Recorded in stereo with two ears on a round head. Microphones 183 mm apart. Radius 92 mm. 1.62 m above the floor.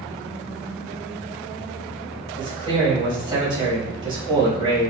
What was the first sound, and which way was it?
A man speaking, 25° right (ahead or behind).